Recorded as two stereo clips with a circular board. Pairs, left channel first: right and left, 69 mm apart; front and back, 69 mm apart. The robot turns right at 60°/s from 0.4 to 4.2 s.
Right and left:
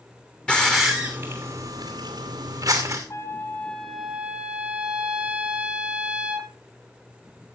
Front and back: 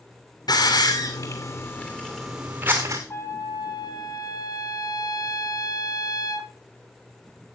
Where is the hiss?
15° right, 2.5 m; by 3.0 s 135° left, 2.5 m.